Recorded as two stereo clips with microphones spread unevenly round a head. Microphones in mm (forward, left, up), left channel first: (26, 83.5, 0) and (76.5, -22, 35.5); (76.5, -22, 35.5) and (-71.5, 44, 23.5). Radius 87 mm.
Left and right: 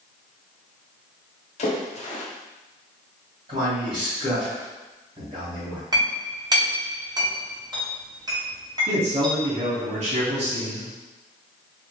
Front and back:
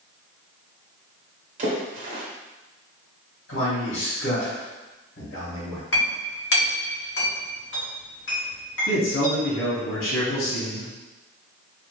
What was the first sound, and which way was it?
A splash, 120° left.